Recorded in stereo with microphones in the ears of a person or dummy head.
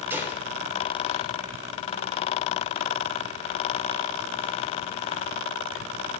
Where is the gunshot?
15° right (ahead or behind), 3 m.